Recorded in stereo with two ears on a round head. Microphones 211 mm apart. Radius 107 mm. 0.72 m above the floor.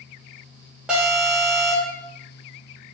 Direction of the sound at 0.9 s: 5° right (ahead or behind).